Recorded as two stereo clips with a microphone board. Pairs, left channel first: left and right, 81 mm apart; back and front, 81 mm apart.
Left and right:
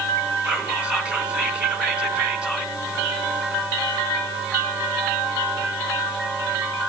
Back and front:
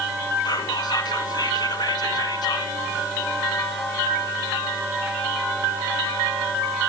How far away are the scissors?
No scissors in this recording.